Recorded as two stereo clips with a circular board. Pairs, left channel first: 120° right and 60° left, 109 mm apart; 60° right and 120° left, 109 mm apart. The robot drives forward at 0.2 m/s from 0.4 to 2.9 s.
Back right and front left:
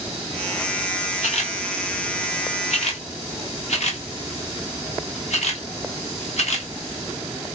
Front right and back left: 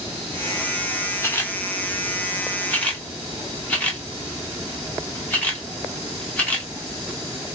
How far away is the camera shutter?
About 1.2 m.